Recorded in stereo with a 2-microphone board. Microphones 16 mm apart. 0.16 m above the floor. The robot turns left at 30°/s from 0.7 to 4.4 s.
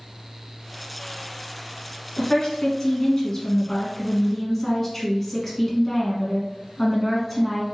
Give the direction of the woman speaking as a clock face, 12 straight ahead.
9 o'clock.